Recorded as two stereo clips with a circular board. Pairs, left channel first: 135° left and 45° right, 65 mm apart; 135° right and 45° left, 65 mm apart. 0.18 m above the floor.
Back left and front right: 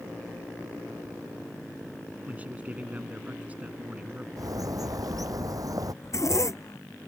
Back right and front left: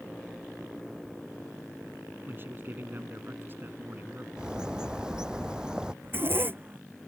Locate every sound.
2.3 s a man speaking: 10° left
4.4 s a bird: 30° right
6.0 s a zipper: 100° left